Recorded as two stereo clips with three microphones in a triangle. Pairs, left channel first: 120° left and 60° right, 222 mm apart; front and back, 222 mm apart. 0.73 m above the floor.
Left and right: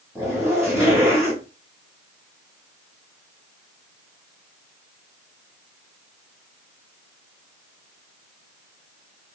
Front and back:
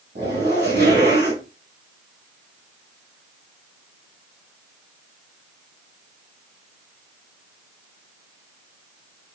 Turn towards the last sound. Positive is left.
turn(degrees=-140)